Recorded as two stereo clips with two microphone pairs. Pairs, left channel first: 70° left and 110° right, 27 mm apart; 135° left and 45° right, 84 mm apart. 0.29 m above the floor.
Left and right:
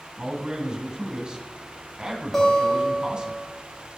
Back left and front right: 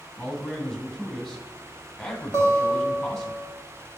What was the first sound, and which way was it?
A man speaking, 140° right.